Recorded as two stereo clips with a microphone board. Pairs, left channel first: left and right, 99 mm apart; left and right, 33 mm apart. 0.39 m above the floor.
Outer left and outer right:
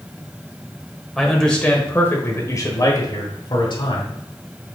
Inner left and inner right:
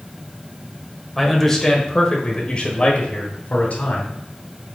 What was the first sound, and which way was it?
A man speaking, centre (ahead or behind).